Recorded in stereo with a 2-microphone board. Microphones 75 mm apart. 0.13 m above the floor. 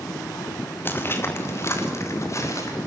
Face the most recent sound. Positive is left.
turn(degrees=45)  # may be behind; listen again after turning